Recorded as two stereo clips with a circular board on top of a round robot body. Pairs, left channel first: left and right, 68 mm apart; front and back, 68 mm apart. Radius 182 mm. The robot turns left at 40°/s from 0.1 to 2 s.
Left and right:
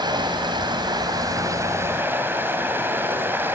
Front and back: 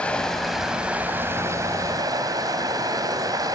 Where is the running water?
75° right, 2.5 m; by 3.6 s 150° right, 2.5 m.